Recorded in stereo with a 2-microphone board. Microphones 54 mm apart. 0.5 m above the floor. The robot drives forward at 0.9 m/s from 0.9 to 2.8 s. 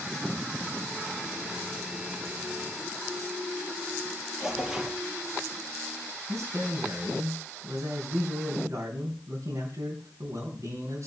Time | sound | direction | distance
4.4 | tearing paper | 10° right (ahead or behind) | 4.5 m
6.3 | a man speaking | 70° right (ahead or behind) | 3.5 m